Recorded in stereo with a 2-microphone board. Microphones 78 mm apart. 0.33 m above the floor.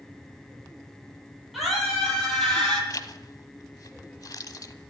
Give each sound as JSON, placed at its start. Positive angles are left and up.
{"t": 1.5, "sound": "a scream", "side_deg": -5, "distance_m": 10.0}
{"t": 2.9, "sound": "a zipper", "side_deg": 50, "distance_m": 0.9}